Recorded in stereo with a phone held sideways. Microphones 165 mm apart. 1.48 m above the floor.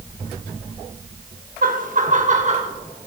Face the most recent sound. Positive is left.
turn(degrees=-45)  # may be behind; listen again after turning